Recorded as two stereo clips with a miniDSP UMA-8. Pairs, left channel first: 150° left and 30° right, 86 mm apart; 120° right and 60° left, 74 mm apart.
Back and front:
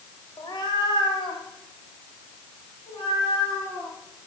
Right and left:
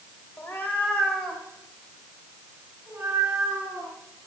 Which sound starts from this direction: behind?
A cat meowing, at 0.4 s.